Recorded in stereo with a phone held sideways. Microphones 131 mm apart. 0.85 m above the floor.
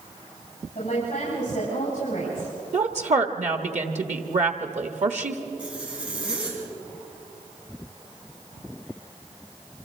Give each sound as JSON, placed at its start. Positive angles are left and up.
{"t": 0.8, "sound": "a woman speaking", "side_deg": 55, "distance_m": 7.0}
{"t": 2.7, "sound": "a woman speaking", "side_deg": -60, "distance_m": 1.1}
{"t": 5.6, "sound": "a zipper", "side_deg": -10, "distance_m": 5.0}